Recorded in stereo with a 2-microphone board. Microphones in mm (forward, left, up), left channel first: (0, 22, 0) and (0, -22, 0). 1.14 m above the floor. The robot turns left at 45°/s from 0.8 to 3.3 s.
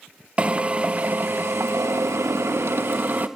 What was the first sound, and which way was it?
A drill, 30° right.